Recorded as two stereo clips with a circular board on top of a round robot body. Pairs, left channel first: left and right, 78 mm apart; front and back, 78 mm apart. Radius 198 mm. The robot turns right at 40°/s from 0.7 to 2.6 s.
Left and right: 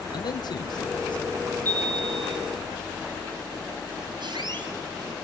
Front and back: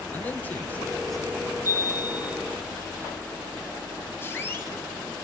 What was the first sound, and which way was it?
A man speaking, 70° left.